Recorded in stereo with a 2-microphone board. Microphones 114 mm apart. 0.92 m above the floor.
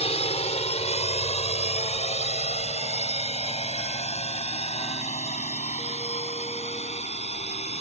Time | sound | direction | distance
0.0 | a drone | 65° left (ahead or behind) | ?